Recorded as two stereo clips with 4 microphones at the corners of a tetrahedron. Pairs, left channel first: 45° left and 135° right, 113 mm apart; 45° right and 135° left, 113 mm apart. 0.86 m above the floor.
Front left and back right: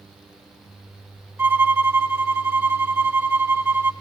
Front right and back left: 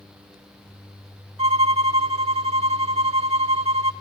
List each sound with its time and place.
1.4 s a violin: 160° left, 1.0 m